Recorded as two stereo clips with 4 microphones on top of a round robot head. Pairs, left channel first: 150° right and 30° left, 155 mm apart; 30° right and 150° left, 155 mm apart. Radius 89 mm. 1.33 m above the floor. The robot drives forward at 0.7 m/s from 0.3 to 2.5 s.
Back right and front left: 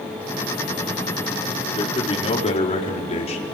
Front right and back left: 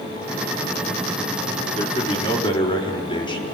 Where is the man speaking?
85° right, 4 m; by 3.6 s 95° right, 4 m.